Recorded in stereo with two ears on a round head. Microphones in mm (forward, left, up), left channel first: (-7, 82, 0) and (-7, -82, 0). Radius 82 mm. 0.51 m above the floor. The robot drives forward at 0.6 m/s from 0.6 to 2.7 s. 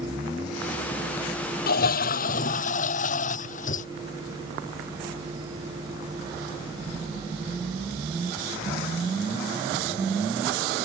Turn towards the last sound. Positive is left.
turn(degrees=45)  # may be behind; listen again after turning